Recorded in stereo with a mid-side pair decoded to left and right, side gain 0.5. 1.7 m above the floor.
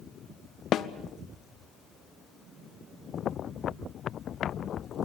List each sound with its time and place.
0.7 s a snare drum: 60° left, 1.1 m